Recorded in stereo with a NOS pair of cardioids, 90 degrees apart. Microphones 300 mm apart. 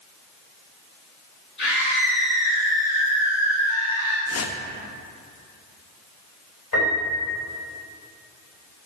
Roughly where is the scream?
Ahead left.